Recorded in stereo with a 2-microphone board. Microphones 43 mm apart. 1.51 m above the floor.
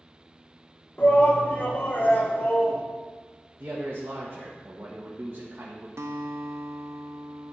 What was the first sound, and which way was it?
A shout, 35° left (ahead or behind).